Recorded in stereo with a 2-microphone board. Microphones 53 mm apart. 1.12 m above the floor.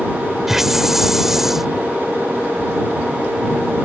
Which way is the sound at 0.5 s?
5° right (ahead or behind).